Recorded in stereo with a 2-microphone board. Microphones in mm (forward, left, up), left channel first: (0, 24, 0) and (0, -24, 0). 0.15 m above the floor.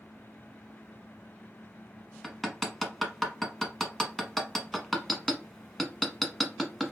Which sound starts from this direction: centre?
Hammering, at 2.2 s.